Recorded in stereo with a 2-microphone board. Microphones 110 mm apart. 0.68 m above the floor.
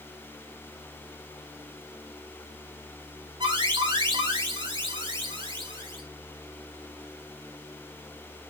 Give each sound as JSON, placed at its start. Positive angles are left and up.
{"t": 3.4, "sound": "an alarm", "side_deg": -45, "distance_m": 3.0}